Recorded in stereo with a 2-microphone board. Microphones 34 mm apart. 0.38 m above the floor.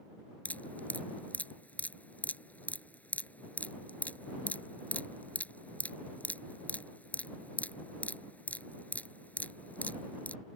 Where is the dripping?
55° left (ahead or behind).